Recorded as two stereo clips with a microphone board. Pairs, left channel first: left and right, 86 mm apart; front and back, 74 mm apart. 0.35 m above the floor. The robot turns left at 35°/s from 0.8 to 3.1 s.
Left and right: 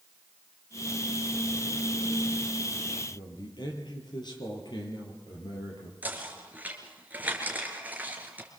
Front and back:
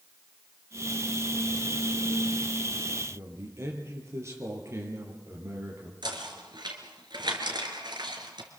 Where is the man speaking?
125° left, 6.5 m.